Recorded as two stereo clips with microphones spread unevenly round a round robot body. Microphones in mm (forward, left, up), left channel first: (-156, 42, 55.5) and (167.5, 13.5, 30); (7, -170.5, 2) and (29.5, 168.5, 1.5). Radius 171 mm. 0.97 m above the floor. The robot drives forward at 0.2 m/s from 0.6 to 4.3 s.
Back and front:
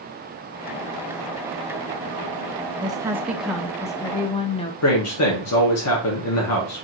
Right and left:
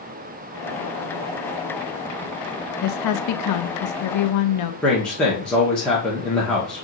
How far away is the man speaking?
About 0.9 m.